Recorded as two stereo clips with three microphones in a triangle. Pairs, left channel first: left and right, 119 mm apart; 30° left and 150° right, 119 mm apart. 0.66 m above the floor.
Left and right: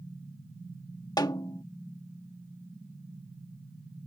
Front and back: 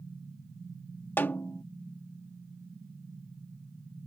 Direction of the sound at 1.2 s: 90° left.